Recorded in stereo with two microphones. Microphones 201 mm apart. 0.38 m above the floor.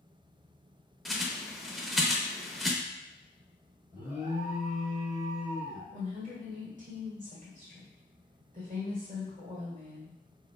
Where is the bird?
Centre (ahead or behind), 0.6 m.